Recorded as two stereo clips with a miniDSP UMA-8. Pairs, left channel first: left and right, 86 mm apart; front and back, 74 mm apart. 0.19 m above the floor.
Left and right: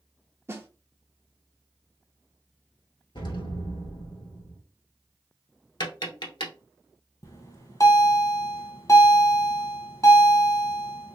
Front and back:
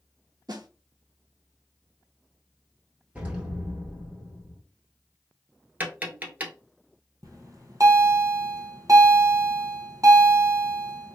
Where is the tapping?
115° left, 0.9 m.